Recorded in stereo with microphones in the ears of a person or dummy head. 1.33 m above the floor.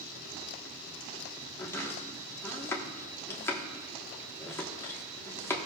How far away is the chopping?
About 1.4 m.